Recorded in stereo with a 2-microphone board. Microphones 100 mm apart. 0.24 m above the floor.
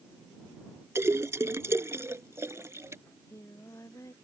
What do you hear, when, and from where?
0.9 s a splash: 30° right (ahead or behind)
3.1 s singing: 30° left (ahead or behind)